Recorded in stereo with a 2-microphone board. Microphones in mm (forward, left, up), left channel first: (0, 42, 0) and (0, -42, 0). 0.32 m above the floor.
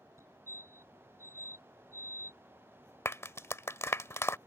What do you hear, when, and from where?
0.2 s a fire alarm: 35° right (ahead or behind)
3.0 s a clap: 35° left (ahead or behind)